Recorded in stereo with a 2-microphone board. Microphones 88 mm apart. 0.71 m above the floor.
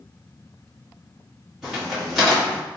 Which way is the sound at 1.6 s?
5° right (ahead or behind).